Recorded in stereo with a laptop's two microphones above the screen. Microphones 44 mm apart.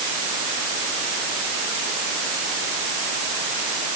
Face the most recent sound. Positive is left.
No sound to turn to.